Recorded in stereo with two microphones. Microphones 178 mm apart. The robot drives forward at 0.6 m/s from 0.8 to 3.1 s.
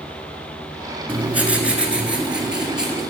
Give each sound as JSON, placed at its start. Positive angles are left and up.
{"t": 1.1, "sound": "writing", "side_deg": -10, "distance_m": 1.2}